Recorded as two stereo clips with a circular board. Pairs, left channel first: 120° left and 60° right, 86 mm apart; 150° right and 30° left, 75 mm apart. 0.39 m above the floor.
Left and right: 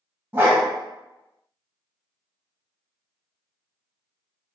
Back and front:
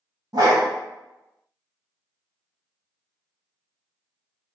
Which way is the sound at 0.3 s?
5° left.